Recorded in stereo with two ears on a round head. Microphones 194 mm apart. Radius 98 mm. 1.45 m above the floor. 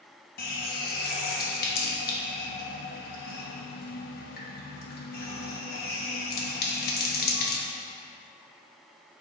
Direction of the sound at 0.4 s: 45° left (ahead or behind).